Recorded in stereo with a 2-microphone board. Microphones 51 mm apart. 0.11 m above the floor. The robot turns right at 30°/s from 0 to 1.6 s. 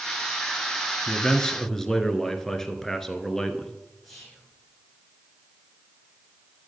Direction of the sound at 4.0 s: 5° left (ahead or behind).